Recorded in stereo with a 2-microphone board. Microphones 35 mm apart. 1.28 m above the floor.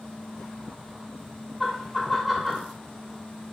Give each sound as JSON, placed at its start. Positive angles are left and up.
{"t": 1.6, "sound": "laughter", "side_deg": 0, "distance_m": 1.0}